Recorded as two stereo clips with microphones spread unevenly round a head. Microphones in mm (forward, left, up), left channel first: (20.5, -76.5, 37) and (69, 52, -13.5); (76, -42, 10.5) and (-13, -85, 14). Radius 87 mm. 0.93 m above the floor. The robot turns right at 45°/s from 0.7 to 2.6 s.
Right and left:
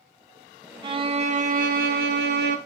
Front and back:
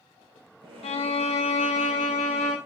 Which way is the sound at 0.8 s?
5° left.